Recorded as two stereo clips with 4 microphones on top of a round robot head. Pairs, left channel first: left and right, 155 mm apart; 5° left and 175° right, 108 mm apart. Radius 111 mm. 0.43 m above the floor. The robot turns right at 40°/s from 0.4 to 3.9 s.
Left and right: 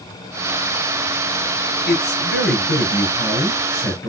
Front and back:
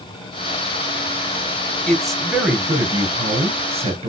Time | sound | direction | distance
1.9 | a man speaking | 85° left | 4 m